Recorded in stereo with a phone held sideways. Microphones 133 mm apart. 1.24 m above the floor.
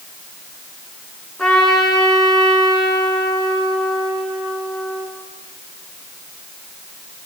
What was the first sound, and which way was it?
A trumpet, 5° left (ahead or behind).